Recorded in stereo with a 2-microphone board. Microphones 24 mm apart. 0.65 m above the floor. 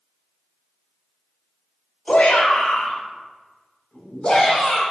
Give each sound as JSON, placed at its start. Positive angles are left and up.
{"t": 2.1, "sound": "a shout", "side_deg": 70, "distance_m": 2.5}